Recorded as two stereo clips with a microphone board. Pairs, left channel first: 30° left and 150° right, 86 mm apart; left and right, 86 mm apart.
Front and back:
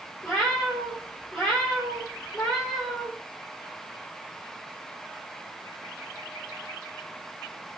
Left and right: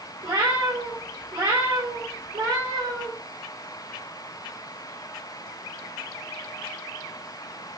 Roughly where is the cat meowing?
Ahead right.